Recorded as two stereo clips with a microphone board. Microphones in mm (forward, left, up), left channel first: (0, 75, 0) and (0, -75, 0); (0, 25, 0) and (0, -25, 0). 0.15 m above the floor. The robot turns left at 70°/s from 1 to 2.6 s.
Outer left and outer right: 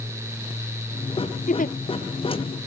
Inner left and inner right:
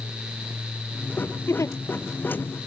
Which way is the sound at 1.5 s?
60° left (ahead or behind).